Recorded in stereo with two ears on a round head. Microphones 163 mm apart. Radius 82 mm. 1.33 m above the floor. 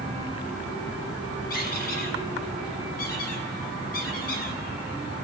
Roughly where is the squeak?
Left.